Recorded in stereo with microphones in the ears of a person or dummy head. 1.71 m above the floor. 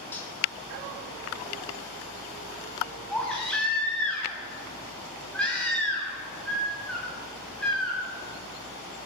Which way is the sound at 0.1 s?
10° left (ahead or behind).